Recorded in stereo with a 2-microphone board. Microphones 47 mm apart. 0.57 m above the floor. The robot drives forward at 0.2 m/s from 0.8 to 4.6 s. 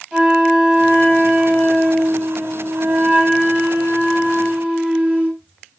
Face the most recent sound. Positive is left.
turn(degrees=-30)  # may be behind; listen again after turning